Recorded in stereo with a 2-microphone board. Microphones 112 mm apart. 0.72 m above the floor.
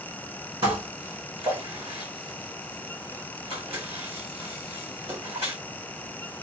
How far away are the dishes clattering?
About 1.4 m.